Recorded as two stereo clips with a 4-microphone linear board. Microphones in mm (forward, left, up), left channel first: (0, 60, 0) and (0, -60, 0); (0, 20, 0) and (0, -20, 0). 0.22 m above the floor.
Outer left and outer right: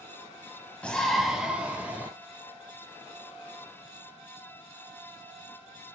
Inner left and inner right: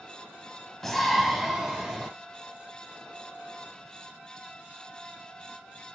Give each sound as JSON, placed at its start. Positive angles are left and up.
{"t": 0.8, "sound": "a shout", "side_deg": 10, "distance_m": 1.2}